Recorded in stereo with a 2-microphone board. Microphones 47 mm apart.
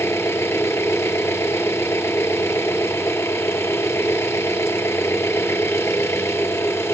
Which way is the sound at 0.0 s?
65° left (ahead or behind).